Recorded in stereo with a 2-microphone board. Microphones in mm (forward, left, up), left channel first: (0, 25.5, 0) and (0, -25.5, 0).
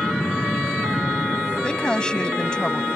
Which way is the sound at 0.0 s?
5° left (ahead or behind).